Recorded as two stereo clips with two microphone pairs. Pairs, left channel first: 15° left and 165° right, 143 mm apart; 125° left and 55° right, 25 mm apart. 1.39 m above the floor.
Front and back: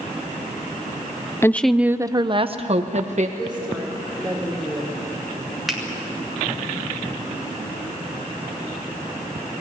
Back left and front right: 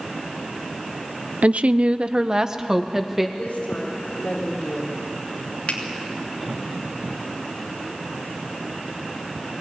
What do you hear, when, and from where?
1.4 s a woman speaking: 60° right, 0.7 m; by 3.3 s 135° right, 1.6 m
3.4 s a woman speaking: 100° left, 3.5 m
5.7 s a finger snap: 105° left, 3 m